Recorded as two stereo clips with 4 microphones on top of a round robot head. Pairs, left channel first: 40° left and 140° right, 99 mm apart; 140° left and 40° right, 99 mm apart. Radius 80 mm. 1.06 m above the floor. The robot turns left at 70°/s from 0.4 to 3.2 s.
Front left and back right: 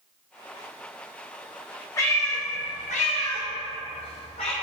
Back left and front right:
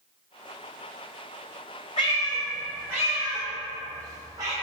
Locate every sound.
2.0 s a cat meowing: 105° left, 0.5 m; by 4.5 s 15° left, 0.5 m